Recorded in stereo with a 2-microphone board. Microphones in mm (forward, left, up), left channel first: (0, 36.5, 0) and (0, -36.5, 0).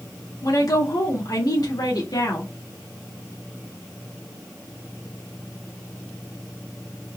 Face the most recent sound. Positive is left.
turn(degrees=60)  # may be behind; listen again after turning